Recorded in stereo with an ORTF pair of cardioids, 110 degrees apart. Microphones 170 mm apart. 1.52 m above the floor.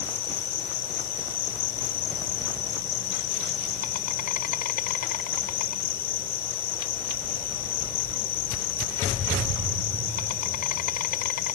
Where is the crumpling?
I don't hear crumpling.